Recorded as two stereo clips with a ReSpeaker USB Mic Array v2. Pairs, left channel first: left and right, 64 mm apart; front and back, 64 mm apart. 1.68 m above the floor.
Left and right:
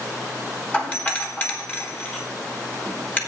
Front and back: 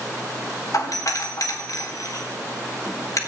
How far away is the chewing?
I don't hear chewing.